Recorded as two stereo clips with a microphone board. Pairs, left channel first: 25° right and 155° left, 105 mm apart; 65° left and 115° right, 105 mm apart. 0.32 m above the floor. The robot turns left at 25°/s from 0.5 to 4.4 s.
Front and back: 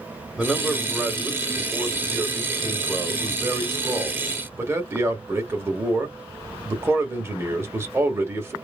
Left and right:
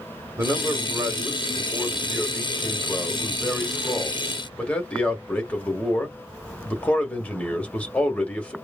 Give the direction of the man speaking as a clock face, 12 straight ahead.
4 o'clock.